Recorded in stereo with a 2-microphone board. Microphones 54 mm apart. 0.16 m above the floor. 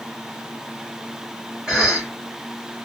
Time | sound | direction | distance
1.7 | a cough | 15° right (ahead or behind) | 1.9 m